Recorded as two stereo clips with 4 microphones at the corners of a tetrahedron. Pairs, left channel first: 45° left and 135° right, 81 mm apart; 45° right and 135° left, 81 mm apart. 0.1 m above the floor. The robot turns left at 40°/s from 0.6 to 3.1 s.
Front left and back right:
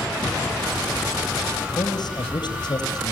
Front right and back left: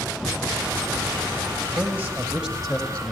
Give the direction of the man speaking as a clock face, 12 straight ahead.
9 o'clock.